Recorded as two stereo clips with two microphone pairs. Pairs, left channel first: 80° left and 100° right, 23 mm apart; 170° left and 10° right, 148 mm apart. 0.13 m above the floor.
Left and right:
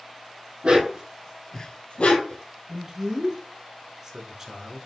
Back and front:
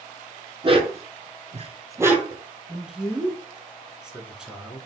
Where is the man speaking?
90° right, 1.1 m.